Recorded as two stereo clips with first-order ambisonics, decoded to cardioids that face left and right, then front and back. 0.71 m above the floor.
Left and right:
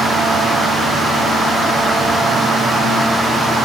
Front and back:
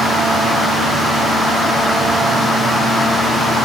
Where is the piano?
I don't hear a piano.